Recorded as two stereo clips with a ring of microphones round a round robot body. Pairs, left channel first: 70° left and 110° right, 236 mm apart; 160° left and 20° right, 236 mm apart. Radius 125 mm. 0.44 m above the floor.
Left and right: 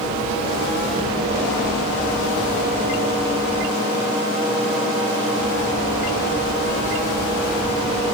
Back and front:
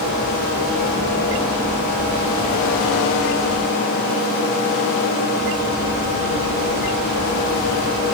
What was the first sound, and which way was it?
Only background noise.